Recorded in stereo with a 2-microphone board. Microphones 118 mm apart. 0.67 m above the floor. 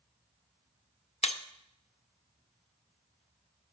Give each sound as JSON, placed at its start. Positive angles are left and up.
{"t": 1.2, "sound": "breaking glass", "side_deg": 65, "distance_m": 0.5}